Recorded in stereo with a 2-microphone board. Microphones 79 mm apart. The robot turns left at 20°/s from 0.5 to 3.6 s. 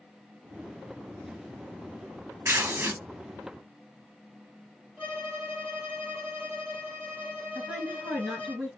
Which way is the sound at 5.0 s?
20° right (ahead or behind).